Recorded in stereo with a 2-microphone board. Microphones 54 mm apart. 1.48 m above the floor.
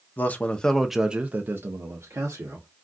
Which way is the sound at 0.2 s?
35° left (ahead or behind).